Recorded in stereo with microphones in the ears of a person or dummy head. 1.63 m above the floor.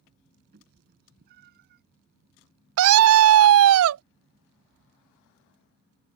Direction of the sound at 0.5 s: 50° right (ahead or behind).